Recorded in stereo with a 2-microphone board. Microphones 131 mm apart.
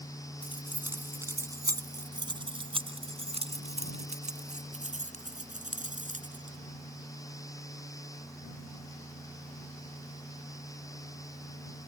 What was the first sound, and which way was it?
Keys jangling, 10° right (ahead or behind).